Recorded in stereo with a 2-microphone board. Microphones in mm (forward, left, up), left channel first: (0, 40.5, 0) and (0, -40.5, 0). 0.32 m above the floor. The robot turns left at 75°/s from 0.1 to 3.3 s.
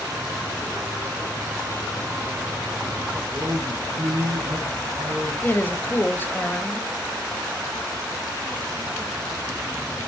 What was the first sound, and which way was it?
A man speaking, 75° right (ahead or behind).